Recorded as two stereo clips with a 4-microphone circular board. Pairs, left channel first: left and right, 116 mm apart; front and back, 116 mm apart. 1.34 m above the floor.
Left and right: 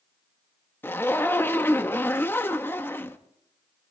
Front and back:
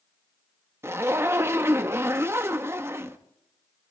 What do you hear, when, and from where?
0.8 s a zipper: 140° left, 0.7 m